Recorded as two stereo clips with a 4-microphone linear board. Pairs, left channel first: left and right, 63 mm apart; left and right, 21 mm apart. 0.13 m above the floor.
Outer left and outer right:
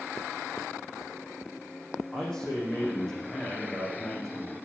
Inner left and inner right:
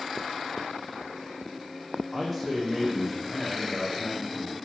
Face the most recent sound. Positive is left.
turn(degrees=10)  # may be behind; listen again after turning